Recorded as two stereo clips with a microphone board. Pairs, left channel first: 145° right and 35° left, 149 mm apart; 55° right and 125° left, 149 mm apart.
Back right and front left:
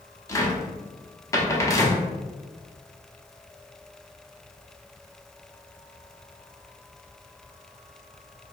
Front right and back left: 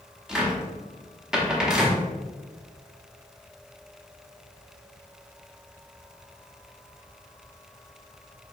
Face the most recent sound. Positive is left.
turn(degrees=-160)